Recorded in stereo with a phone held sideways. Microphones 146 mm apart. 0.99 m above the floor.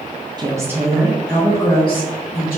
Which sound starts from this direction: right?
A woman speaking, at 0.4 s.